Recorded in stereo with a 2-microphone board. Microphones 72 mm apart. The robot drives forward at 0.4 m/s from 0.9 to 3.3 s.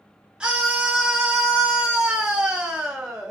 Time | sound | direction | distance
0.4 | a scream | 10° right (ahead or behind) | 0.8 m